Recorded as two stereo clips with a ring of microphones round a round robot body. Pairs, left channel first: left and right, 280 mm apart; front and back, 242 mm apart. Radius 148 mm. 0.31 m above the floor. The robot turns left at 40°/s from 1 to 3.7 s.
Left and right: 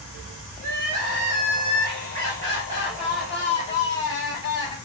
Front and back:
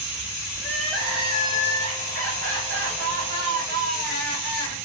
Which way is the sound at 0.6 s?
95° right.